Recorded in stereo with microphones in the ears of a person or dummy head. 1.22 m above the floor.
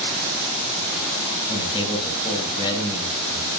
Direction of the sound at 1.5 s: 25° left (ahead or behind).